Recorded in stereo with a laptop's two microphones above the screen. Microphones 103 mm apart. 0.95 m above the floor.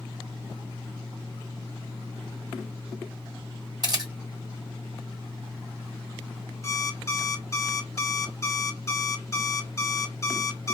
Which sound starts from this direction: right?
A camera shutter, at 3.8 s.